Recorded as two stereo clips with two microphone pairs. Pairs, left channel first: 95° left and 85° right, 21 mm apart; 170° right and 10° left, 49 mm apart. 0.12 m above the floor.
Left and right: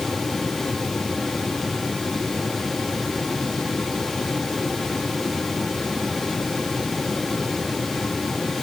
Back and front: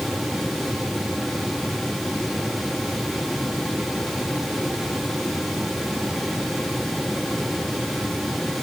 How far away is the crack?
No crack in this recording.